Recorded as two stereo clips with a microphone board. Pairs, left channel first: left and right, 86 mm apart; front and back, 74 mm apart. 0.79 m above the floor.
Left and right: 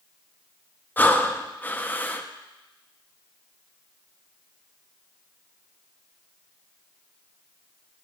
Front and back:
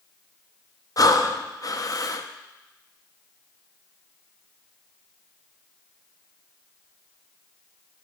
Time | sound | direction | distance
1.0 | breathing | 25° left | 0.5 m